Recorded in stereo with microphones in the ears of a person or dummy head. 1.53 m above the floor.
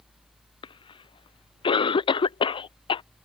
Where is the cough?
30° left (ahead or behind).